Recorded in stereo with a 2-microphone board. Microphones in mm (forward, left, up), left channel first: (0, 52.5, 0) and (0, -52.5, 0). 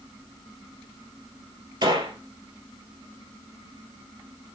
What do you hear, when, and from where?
1.8 s a gunshot: 45° right (ahead or behind), 1.6 m